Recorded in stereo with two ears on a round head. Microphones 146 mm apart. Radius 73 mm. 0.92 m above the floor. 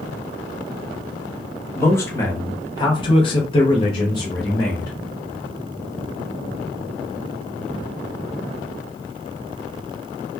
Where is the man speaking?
15° left (ahead or behind), 1.1 m; by 4.9 s 20° left (ahead or behind), 1.1 m.